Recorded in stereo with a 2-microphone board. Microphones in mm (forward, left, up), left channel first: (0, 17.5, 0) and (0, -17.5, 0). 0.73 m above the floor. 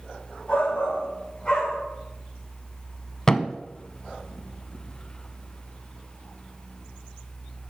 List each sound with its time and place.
0.5 s a shout: 35° left (ahead or behind), 3 m; by 1.8 s 20° left (ahead or behind), 2.5 m
3.3 s a thud: 20° left (ahead or behind), 0.6 m